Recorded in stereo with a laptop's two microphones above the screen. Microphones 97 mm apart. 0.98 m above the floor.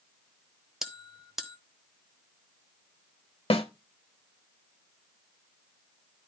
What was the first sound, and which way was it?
A bell, 5° right (ahead or behind).